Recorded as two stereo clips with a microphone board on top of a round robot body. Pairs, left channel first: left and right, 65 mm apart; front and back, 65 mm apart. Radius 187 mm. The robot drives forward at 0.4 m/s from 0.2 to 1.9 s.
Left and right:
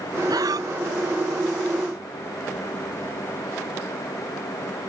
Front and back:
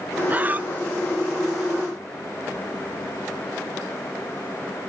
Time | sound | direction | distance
0.3 | breathing | 115° right | ?